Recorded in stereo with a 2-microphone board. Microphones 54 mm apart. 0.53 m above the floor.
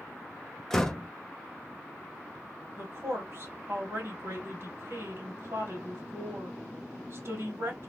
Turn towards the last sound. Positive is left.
turn(degrees=-50)  # may be behind; listen again after turning